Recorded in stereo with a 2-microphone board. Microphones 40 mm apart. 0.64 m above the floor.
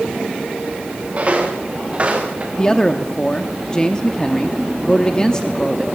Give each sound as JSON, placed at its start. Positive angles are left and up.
{"t": 1.1, "sound": "footsteps", "side_deg": -35, "distance_m": 4.0}
{"t": 2.6, "sound": "a man speaking", "side_deg": 20, "distance_m": 0.8}